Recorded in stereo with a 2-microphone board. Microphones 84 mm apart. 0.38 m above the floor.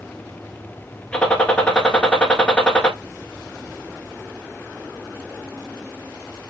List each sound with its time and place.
1.1 s a gunshot: 15° left (ahead or behind), 1.1 m